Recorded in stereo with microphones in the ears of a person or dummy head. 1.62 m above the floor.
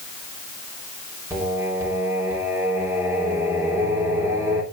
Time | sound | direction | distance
1.3 | singing | 25° right (ahead or behind) | 3.5 m